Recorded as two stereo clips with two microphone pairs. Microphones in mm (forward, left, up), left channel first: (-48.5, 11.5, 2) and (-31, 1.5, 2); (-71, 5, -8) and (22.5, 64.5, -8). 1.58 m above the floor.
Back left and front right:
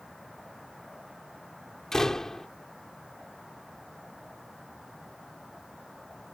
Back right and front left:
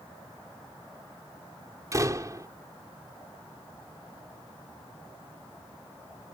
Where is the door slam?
90° left.